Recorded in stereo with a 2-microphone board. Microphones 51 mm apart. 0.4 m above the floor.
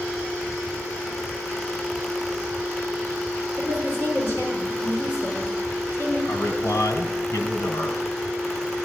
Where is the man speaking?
55° left (ahead or behind), 3 m.